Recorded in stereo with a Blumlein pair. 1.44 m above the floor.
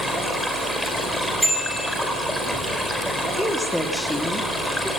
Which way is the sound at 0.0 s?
Straight ahead.